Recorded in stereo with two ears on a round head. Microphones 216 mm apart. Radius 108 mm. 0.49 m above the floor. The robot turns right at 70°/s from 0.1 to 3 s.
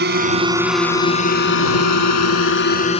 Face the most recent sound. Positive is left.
turn(degrees=25)  # may be behind; listen again after turning